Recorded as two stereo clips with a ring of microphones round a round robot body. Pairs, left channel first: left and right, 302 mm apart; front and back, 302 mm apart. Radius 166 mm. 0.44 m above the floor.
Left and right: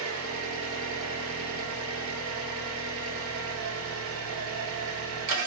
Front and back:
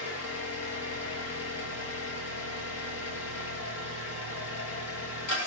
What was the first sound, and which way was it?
An engine running, 45° right.